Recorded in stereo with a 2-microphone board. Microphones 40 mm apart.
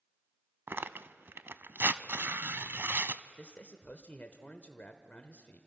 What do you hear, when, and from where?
0.7 s tearing paper: 65° right (ahead or behind), 0.5 m
3.4 s a man speaking: 40° left (ahead or behind), 1.0 m